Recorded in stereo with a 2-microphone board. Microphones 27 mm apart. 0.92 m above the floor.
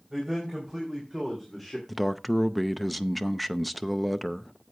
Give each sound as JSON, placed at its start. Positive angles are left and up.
{"t": 0.1, "sound": "a man speaking", "side_deg": -10, "distance_m": 4.5}
{"t": 1.9, "sound": "a man speaking", "side_deg": 5, "distance_m": 0.6}